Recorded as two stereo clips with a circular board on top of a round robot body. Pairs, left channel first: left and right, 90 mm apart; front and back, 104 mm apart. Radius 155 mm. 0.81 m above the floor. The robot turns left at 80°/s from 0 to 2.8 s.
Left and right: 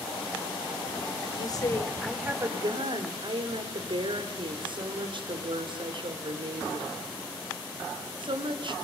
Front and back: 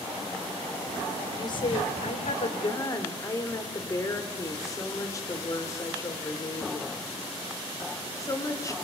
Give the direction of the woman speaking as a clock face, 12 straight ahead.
10 o'clock.